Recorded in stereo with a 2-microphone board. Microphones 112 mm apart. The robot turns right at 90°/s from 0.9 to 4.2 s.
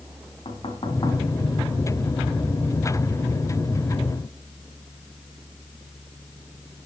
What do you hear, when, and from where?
0.5 s knocking: 60° left (ahead or behind), 4 m; by 1.2 s 30° left (ahead or behind), 4 m